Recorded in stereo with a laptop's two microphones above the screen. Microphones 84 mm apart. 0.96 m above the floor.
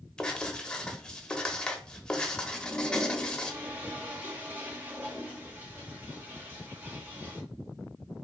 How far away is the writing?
About 1.0 m.